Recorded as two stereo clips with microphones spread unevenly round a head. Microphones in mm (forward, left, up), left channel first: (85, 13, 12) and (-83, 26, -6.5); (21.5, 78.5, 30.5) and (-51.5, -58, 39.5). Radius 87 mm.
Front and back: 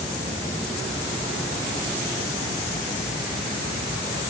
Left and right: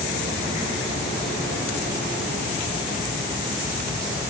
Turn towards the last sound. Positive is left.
No sound to turn to.